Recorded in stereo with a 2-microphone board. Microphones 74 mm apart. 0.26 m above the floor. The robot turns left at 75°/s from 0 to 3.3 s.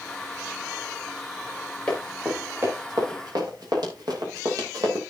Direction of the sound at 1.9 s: 15° left (ahead or behind).